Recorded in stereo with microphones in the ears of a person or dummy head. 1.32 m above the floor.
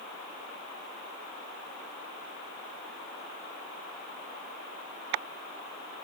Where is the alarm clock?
No alarm clock in this recording.